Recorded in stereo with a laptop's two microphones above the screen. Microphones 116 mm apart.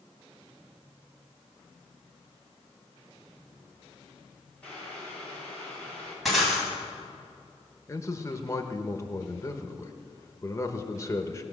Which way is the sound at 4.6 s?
10° left (ahead or behind).